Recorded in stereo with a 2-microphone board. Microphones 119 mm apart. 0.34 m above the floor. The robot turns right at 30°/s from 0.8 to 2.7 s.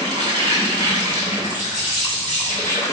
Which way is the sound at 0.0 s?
35° right.